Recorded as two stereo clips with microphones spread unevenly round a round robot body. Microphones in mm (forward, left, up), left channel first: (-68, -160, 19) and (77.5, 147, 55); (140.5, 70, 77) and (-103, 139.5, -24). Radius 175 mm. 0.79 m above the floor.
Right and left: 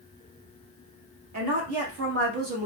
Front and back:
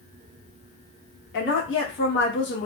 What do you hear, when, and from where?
1.3 s a woman speaking: 40° left, 1.2 m; by 2.7 s 20° left, 0.9 m